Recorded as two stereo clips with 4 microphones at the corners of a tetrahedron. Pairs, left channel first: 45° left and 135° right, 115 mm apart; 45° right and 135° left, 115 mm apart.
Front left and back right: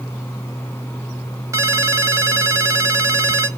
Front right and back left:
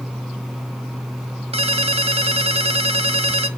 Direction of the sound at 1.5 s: 165° left.